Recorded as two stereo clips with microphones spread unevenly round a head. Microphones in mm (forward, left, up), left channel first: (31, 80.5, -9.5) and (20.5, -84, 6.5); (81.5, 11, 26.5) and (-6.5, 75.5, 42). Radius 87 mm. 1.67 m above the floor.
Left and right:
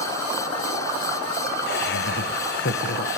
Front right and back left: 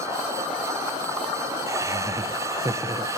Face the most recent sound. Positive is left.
turn(degrees=95)